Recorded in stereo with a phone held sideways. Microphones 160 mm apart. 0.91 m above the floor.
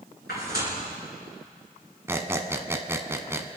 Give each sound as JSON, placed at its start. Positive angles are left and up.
{"t": 0.3, "sound": "tearing paper", "side_deg": 80, "distance_m": 6.5}
{"t": 2.1, "sound": "a squeak", "side_deg": -15, "distance_m": 1.0}